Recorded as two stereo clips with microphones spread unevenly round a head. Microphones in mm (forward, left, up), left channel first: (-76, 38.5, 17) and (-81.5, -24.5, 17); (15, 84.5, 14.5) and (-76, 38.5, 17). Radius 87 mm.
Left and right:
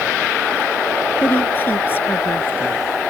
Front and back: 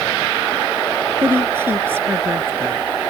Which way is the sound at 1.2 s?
140° left.